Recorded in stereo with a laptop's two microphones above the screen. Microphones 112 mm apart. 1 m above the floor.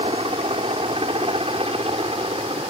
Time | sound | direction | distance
0.0 | a helicopter | 65° right (ahead or behind) | ?